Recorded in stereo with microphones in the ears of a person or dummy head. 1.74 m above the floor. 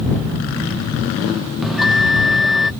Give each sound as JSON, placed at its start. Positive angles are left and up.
{"t": 1.6, "sound": "a bell", "side_deg": 0}